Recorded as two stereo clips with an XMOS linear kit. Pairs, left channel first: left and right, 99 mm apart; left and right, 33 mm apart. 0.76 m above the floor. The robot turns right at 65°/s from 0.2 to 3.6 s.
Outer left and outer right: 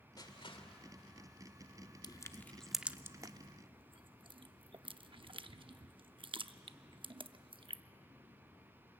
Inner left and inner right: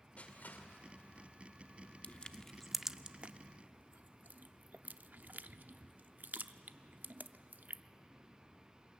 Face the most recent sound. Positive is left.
turn(degrees=-60)  # may be behind; listen again after turning